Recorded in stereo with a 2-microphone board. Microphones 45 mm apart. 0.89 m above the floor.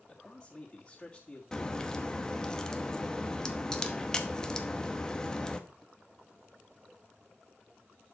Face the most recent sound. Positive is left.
turn(degrees=15)  # may be behind; listen again after turning